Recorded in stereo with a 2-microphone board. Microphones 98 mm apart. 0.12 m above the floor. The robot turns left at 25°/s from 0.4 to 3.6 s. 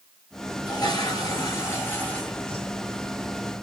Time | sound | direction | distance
0.7 | a toilet flushing | 60° left | 2.5 m